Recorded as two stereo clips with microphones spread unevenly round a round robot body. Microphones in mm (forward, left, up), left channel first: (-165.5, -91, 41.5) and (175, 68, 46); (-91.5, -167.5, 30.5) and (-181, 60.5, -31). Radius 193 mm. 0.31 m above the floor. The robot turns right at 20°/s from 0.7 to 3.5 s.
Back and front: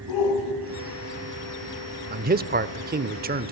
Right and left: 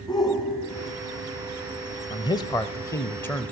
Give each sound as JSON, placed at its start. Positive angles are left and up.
{"t": 0.1, "sound": "a shout", "azimuth_deg": -150, "distance_m": 2.5}
{"t": 2.1, "sound": "a man speaking", "azimuth_deg": 10, "distance_m": 0.9}